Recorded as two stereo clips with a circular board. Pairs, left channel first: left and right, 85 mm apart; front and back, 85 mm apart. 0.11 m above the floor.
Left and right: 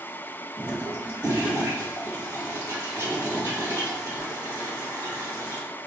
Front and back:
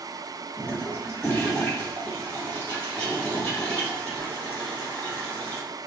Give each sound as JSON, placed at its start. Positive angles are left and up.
{"t": 0.6, "sound": "a toilet flushing", "azimuth_deg": -55, "distance_m": 1.9}